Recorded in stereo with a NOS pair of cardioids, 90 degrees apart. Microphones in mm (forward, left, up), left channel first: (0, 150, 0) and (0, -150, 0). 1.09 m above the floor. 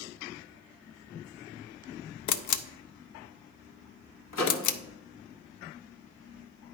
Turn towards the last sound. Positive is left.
turn(degrees=55)